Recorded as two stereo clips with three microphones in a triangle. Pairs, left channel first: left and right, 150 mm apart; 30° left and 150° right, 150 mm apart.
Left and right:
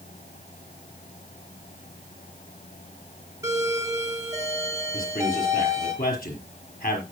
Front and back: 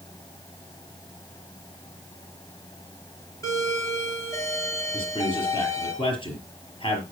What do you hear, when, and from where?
3.4 s a doorbell: 30° right, 3 m
4.9 s a man speaking: 85° left, 5 m